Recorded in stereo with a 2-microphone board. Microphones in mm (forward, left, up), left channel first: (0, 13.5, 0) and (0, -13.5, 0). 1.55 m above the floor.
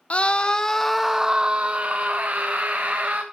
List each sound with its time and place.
0.1 s a scream: 40° left (ahead or behind), 0.8 m; by 3.2 s 75° right (ahead or behind), 1.6 m